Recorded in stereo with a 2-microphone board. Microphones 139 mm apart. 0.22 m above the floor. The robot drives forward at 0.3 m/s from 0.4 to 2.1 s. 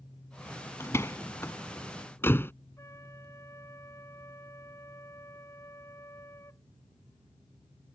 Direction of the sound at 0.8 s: 20° left (ahead or behind).